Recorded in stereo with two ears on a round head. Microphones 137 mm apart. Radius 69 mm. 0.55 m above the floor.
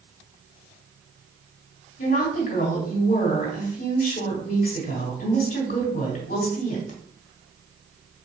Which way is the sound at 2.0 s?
55° left (ahead or behind).